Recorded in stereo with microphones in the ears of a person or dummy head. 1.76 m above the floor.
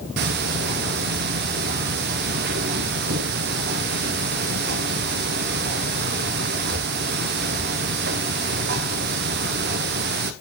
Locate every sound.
0.2 s ticking: 50° right (ahead or behind), 0.9 m